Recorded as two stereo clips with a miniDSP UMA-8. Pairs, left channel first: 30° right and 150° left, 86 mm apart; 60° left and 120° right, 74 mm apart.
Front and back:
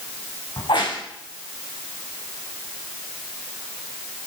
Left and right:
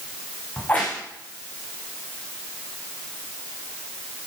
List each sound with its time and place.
0.6 s a crack: 10° right, 6.5 m